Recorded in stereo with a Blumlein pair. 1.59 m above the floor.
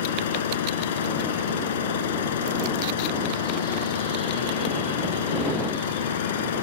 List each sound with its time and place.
0.0 s an engine running: 60° left